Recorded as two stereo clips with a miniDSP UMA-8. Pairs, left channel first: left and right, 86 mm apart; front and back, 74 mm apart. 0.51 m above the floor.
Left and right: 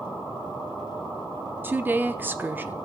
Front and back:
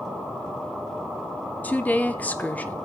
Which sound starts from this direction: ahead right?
A woman speaking, at 1.6 s.